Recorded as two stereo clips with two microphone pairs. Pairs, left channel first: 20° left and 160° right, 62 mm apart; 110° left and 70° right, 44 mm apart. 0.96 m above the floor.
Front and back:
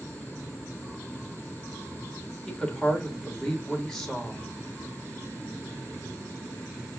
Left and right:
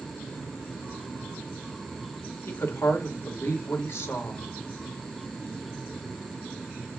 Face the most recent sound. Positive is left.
turn(degrees=105)